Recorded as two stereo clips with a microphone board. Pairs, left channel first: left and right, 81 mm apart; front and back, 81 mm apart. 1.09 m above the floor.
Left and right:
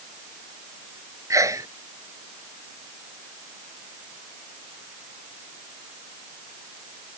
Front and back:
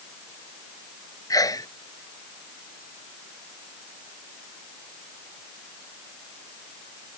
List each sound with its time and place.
1.3 s a sneeze: 40° right